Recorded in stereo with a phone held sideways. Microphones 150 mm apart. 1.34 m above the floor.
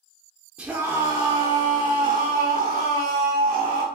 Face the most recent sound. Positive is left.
turn(degrees=-85)